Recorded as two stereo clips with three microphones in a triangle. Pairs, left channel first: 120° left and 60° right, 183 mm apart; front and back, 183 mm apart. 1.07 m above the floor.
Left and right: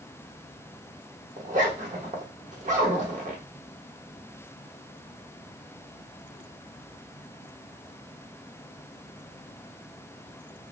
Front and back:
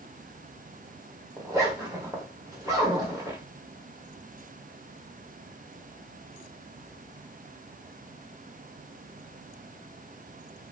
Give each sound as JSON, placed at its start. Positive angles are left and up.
{"t": 1.4, "sound": "a zipper", "azimuth_deg": -110, "distance_m": 1.1}